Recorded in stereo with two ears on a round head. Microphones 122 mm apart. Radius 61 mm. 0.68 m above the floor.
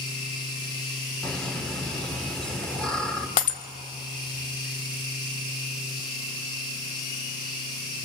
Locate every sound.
1.2 s laughter: 5° left (ahead or behind), 2.5 m
3.4 s breaking glass: 65° left (ahead or behind), 1.6 m